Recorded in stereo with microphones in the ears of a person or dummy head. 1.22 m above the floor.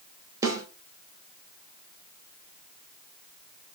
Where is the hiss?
No hiss in this recording.